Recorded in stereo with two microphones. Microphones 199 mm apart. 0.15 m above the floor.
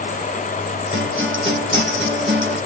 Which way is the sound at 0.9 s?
70° right (ahead or behind).